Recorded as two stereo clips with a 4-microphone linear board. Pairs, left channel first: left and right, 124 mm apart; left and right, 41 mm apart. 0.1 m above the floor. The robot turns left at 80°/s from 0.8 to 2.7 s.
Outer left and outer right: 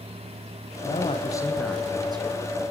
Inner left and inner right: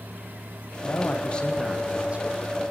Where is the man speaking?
70° left, 4.5 m; by 2.4 s 60° right, 4.5 m.